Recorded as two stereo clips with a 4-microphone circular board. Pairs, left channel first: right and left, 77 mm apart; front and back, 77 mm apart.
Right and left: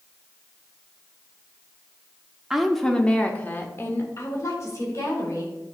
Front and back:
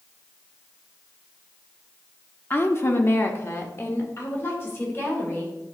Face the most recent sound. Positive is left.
turn(degrees=-60)